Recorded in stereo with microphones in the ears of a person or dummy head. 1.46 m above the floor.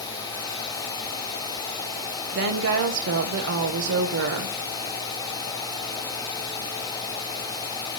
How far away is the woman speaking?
About 1.0 m.